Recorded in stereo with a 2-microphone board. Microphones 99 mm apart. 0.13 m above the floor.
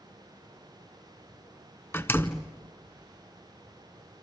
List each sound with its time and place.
1.9 s a door slam: 20° left (ahead or behind), 0.8 m